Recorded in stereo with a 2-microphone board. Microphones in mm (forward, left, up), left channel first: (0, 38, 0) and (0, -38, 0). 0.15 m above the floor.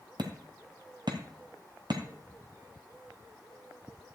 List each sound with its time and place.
0.2 s hammering: 70° right (ahead or behind), 1.6 m